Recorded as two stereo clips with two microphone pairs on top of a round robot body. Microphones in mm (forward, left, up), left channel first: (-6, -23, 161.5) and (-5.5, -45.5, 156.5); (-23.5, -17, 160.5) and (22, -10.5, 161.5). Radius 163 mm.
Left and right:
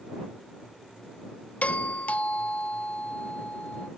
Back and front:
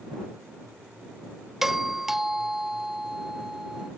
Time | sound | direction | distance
1.6 | a doorbell | 90° left | ?